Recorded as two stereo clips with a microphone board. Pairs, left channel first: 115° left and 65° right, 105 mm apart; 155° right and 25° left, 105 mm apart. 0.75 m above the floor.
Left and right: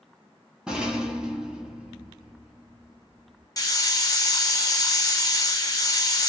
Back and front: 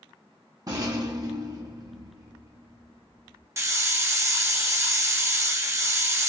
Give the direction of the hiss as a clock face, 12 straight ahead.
10 o'clock.